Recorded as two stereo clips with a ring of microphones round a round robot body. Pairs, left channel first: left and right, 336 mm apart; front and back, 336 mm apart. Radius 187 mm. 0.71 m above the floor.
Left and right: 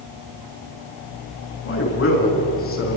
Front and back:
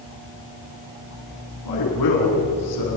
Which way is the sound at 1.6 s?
40° left.